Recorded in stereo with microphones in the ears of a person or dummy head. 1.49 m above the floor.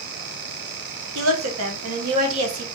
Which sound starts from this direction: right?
A woman speaking, at 1.1 s.